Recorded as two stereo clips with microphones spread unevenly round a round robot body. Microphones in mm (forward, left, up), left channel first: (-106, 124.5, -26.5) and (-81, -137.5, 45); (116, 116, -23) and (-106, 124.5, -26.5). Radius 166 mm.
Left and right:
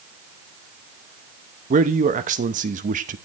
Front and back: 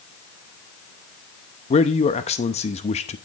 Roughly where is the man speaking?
Ahead.